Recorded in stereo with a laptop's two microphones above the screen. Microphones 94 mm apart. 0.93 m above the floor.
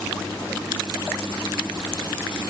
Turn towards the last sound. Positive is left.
No sound to turn to.